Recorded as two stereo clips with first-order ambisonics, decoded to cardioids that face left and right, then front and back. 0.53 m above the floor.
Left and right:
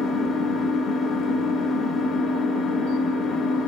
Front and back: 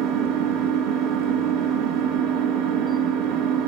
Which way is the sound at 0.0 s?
145° left.